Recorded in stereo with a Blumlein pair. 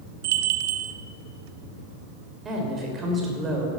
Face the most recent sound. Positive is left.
turn(degrees=-20)